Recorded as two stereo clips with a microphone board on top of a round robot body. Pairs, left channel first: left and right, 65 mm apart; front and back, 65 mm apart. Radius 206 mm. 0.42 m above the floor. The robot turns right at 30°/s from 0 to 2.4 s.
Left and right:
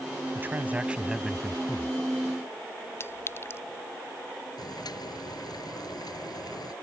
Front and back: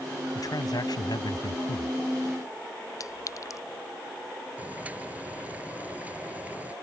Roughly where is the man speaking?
Ahead right.